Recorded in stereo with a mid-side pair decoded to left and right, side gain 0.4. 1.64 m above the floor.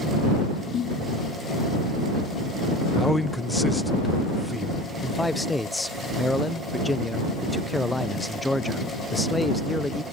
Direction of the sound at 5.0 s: 10° left.